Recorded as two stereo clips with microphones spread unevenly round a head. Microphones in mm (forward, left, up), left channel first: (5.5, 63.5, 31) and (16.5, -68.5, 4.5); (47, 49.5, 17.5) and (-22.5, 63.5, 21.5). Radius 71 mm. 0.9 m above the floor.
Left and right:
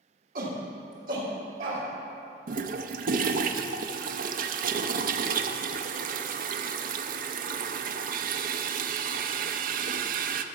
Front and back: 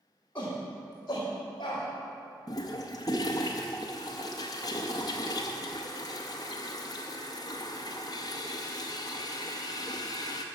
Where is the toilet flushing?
65° right, 0.5 m.